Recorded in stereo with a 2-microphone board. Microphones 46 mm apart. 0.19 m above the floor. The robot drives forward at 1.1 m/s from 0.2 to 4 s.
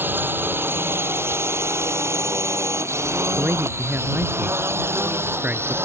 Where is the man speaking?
50° right (ahead or behind); by 5.8 s 40° right (ahead or behind).